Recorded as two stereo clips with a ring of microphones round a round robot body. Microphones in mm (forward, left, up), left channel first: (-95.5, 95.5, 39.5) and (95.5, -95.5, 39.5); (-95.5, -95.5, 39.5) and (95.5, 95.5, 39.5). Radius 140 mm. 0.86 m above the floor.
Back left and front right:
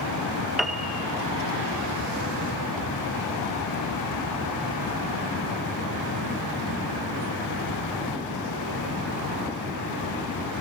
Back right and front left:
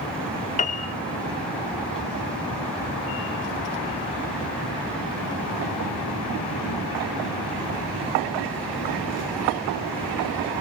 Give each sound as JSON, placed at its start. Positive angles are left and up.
{"t": 0.6, "sound": "a piano", "azimuth_deg": -135, "distance_m": 0.8}